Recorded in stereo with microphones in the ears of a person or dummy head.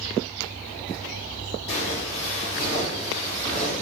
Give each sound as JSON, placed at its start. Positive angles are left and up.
{"t": 1.7, "sound": "footsteps", "side_deg": 35, "distance_m": 1.9}